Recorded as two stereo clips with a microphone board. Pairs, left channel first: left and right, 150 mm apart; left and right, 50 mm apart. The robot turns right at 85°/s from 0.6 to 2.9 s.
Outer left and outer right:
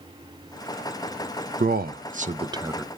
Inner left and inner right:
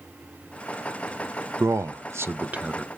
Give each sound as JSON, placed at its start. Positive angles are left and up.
{"t": 1.6, "sound": "a man speaking", "side_deg": -70, "distance_m": 0.6}